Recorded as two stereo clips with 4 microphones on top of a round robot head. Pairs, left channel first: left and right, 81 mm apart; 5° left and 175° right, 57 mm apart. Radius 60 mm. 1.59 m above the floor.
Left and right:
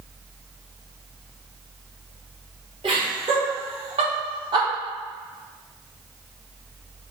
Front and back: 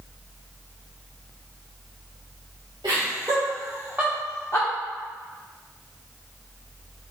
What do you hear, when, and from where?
2.8 s laughter: 130° right, 1.4 m; by 4.7 s 55° right, 0.9 m